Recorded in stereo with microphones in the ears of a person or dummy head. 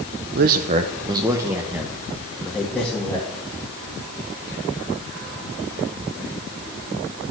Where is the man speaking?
55° right (ahead or behind), 0.6 m; by 3.4 s 10° left (ahead or behind), 1.8 m.